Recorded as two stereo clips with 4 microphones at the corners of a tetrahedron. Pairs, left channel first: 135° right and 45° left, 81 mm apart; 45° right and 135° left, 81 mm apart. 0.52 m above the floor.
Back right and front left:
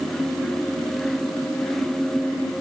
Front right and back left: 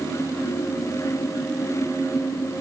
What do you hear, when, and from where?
Only background noise.